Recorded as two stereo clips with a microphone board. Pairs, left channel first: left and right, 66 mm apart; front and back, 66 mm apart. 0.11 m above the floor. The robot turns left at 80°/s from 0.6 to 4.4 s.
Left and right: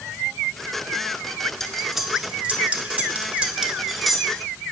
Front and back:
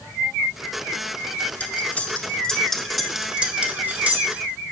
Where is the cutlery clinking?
15° left, 0.7 m; by 4.4 s 155° left, 0.7 m.